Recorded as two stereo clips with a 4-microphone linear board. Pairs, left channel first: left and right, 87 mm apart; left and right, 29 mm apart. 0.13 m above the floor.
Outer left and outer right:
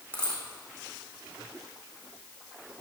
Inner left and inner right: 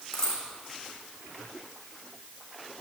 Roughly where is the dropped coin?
Centre.